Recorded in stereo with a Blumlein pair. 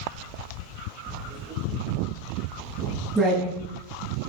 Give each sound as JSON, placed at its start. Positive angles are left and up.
{"t": 1.1, "sound": "writing", "azimuth_deg": -15, "distance_m": 7.5}